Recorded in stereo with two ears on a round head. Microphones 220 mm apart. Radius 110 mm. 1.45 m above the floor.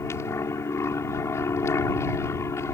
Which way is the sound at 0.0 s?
10° left (ahead or behind).